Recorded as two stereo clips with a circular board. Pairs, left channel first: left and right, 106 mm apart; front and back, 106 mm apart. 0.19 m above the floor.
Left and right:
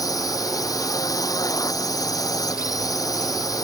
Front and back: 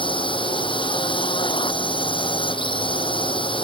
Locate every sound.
0.0 s a drone: 35° left